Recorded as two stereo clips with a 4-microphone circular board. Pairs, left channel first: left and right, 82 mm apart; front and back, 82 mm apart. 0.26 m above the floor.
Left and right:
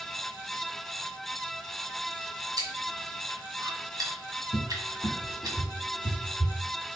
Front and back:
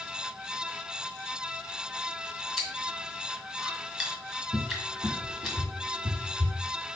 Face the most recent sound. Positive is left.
turn(degrees=150)